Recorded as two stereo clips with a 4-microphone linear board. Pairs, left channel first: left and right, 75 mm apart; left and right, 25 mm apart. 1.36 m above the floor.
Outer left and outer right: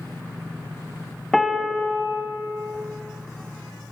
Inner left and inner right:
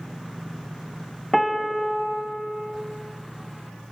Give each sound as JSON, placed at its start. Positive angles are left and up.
{"t": 1.3, "sound": "a piano", "side_deg": 5, "distance_m": 1.9}